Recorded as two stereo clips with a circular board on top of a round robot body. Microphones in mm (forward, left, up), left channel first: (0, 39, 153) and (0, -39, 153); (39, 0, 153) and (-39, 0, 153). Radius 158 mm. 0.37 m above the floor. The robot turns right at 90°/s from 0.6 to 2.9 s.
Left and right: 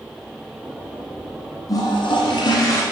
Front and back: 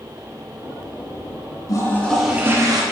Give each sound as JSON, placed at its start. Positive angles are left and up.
{"t": 1.7, "sound": "a toilet flushing", "azimuth_deg": 45, "distance_m": 1.2}